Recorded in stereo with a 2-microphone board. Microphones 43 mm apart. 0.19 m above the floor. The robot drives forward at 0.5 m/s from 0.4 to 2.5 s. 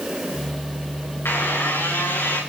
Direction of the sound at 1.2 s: 80° left.